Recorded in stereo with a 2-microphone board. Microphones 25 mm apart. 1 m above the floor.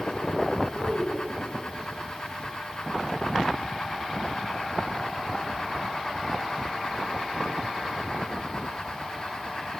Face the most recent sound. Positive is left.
turn(degrees=55)  # may be behind; listen again after turning